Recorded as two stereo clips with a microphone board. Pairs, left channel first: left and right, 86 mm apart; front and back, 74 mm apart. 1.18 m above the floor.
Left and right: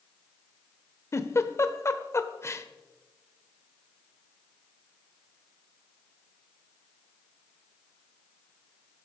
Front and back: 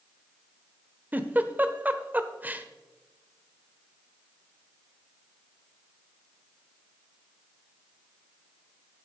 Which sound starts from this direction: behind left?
A giggle, at 1.1 s.